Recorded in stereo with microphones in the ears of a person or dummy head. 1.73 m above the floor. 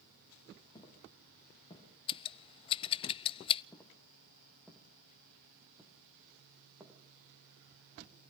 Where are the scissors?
25° left (ahead or behind), 0.5 m.